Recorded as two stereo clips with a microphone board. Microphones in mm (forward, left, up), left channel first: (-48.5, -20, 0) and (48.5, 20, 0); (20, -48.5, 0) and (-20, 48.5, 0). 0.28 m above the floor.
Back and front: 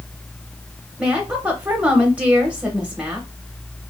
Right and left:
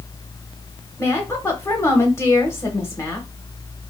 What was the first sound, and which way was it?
A woman speaking, 45° right.